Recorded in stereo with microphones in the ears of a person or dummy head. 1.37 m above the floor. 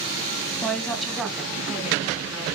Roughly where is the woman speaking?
Centre.